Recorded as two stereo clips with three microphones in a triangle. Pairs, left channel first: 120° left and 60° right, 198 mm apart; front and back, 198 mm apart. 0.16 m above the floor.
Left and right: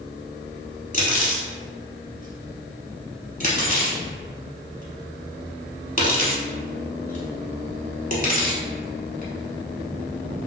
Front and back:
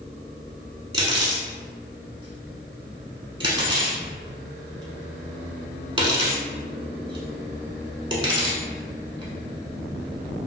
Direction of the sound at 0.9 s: 130° left.